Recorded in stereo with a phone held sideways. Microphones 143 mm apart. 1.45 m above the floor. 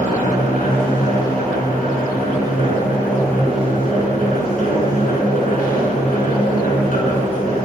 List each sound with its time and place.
0.0 s a machine running: 80° left, 6.5 m